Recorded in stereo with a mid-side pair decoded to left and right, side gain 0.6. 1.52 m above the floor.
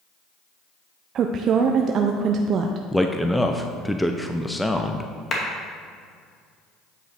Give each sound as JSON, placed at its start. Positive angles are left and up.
{"t": 1.1, "sound": "a woman speaking", "azimuth_deg": -50, "distance_m": 0.5}
{"t": 2.9, "sound": "a man speaking", "azimuth_deg": 5, "distance_m": 0.6}
{"t": 5.3, "sound": "a clap", "azimuth_deg": 35, "distance_m": 2.0}